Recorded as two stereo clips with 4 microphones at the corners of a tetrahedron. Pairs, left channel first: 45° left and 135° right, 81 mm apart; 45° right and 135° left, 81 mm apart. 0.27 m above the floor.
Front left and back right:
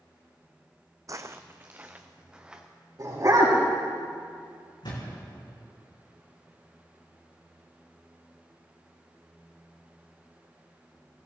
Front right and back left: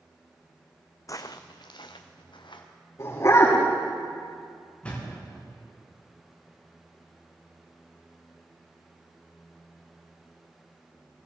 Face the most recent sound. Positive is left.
turn(degrees=25)